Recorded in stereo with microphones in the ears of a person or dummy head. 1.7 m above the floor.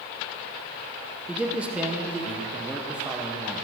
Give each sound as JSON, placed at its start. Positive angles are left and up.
{"t": 1.3, "sound": "a man speaking", "side_deg": -5, "distance_m": 0.9}